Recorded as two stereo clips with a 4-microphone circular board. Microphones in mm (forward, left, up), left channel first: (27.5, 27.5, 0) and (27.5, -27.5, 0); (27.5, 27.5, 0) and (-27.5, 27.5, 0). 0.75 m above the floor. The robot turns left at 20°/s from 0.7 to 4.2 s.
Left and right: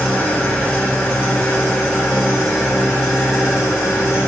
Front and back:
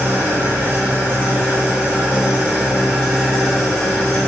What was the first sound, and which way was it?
An engine running, 140° left.